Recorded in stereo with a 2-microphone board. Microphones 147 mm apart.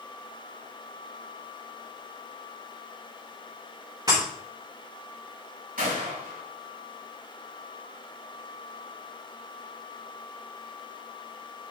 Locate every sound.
4.1 s breaking glass: 30° right (ahead or behind), 5 m
5.8 s a gunshot: 75° right (ahead or behind), 4 m